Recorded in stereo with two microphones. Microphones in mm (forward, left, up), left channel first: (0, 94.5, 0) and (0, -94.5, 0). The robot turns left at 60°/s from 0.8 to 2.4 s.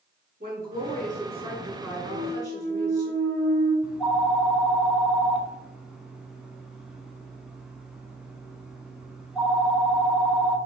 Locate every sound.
0.4 s a woman speaking: 110° right, 1.9 m; by 3.1 s 155° left, 1.9 m
2.1 s a clunk: 30° right (ahead or behind), 2 m; by 3.7 s 15° right (ahead or behind), 2 m
3.8 s a phone ringing: 5° right (ahead or behind), 0.8 m